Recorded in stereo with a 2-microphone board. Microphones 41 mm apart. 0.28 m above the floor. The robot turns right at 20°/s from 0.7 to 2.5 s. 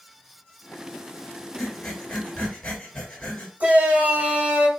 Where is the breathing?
10° left (ahead or behind), 1.7 m; by 3.5 s 20° left (ahead or behind), 1.7 m.